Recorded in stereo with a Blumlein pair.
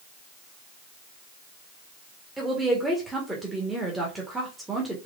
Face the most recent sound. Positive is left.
turn(degrees=-5)